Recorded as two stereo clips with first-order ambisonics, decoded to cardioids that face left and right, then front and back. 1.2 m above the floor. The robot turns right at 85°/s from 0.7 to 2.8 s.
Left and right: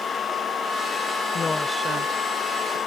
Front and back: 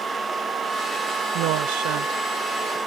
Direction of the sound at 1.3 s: 155° left.